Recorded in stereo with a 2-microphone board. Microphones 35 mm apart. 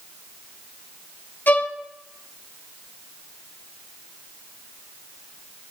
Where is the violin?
65° left (ahead or behind), 3 m.